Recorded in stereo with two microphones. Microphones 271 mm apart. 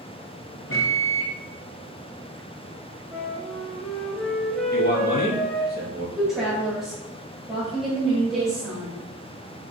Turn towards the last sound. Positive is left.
turn(degrees=0)  # may be behind; listen again after turning